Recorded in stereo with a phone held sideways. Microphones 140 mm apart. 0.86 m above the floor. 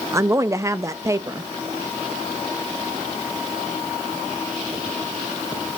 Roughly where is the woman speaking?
Right.